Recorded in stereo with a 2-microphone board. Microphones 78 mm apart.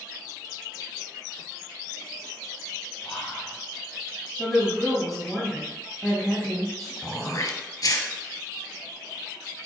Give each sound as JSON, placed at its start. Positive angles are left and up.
{"t": 3.0, "sound": "whispering", "side_deg": 5, "distance_m": 1.4}
{"t": 4.4, "sound": "a woman speaking", "side_deg": 0, "distance_m": 1.2}
{"t": 7.0, "sound": "throat clearing", "side_deg": 45, "distance_m": 1.0}